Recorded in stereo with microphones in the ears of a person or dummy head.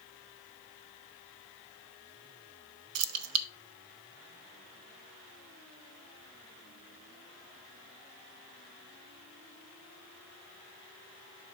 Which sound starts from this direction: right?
Keys jangling, at 3.0 s.